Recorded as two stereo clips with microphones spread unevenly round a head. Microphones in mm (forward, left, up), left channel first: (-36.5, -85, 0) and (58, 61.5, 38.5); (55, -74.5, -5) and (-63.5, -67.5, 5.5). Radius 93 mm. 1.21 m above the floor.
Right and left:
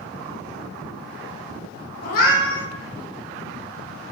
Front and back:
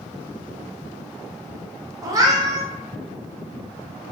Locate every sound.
2.0 s a cat meowing: 155° right, 0.5 m